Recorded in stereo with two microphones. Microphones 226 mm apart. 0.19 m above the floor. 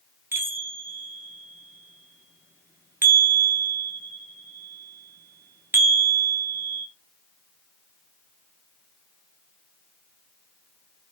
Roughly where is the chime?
Centre.